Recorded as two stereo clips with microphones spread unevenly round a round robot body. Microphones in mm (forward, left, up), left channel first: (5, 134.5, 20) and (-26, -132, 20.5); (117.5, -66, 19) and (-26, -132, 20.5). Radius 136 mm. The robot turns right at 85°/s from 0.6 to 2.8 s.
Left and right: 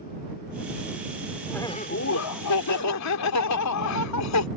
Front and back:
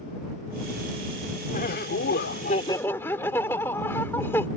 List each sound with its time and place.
1.5 s laughter: 5° right; by 4.5 s 105° left